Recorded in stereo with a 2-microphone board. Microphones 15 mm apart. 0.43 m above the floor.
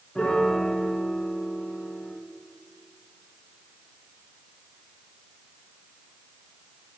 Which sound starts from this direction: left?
A piano, at 0.1 s.